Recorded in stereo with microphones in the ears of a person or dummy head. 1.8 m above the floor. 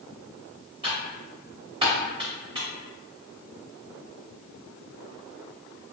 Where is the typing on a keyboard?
25° right (ahead or behind), 0.7 m.